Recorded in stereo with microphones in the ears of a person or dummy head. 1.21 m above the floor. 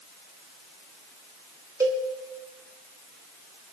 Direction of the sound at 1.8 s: 10° right (ahead or behind).